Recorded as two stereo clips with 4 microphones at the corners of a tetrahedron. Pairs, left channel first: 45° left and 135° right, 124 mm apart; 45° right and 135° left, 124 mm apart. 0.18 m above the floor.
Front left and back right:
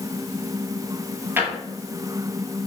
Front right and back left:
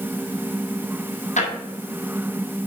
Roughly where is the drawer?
Ahead right.